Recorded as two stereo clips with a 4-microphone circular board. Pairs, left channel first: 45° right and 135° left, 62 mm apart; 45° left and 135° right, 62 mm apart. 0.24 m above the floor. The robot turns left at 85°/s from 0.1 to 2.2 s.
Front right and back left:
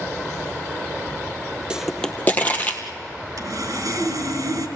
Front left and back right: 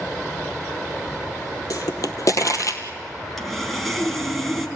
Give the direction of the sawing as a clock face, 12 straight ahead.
8 o'clock.